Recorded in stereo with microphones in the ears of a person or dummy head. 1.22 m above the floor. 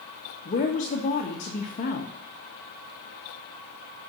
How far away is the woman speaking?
About 1.3 m.